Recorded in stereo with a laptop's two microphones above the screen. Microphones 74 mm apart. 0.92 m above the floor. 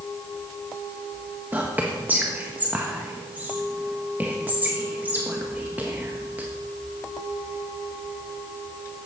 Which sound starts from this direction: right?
Whispering, at 1.5 s.